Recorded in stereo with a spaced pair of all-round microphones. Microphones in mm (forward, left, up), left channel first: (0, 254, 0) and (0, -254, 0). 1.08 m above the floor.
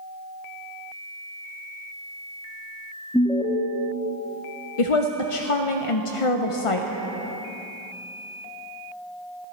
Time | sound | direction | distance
3.1 | an alarm | 5° left (ahead or behind) | 0.9 m
4.8 | a woman speaking | 80° left | 0.6 m